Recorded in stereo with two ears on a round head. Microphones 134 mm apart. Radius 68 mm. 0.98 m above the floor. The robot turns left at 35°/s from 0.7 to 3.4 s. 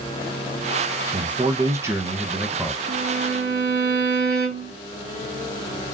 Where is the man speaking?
125° right, 0.9 m; by 2.8 s 175° left, 0.9 m.